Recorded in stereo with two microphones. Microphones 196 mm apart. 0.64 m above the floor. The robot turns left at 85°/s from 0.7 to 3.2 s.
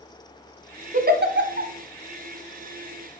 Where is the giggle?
40° right (ahead or behind), 1.0 m; by 1.7 s 60° right (ahead or behind), 1.0 m.